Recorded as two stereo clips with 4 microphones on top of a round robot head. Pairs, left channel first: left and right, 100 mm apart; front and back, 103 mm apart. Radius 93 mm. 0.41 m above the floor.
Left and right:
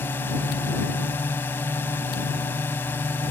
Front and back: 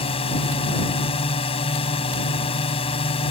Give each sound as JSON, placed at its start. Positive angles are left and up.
{"t": 0.0, "sound": "a drone", "azimuth_deg": 20}